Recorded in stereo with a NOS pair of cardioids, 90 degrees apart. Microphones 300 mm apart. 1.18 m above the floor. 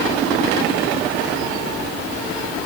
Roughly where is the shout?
I don't hear a shout.